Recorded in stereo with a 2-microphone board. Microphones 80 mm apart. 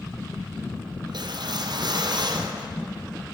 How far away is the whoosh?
About 0.5 m.